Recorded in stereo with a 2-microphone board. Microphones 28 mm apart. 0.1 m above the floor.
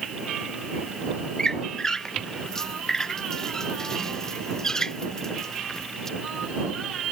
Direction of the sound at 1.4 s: 20° left (ahead or behind).